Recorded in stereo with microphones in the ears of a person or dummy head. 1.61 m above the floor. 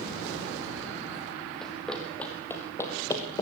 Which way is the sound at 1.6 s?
5° left (ahead or behind).